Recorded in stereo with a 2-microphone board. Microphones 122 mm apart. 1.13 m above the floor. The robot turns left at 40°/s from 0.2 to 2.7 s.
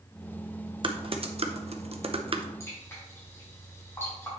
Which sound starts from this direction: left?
Dripping, at 2.6 s.